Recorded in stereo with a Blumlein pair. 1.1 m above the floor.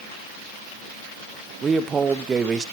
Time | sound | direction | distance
1.6 | a man speaking | 20° right | 0.9 m